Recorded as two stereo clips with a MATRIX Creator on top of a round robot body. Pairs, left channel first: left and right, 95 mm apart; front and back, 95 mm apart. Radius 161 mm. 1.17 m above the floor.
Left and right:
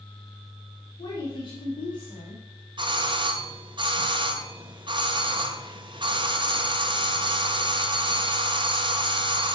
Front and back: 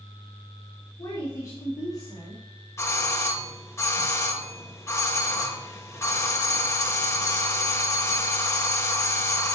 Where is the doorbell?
60° right, 1.7 m.